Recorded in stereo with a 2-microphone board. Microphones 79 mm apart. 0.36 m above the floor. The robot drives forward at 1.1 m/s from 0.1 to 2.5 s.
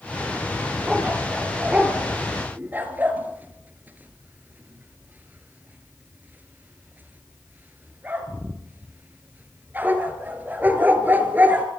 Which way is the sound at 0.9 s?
15° right (ahead or behind).